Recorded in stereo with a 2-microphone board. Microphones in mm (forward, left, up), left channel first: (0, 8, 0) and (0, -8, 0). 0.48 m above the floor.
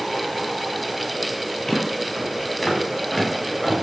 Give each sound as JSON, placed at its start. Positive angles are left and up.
{"t": 1.7, "sound": "footsteps", "side_deg": 25, "distance_m": 7.5}